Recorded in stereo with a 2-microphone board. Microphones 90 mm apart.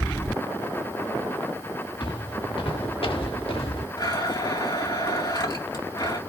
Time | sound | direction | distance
2.0 | footsteps | 65° left (ahead or behind) | 2.5 m
4.0 | a blender | 55° left (ahead or behind) | 2.5 m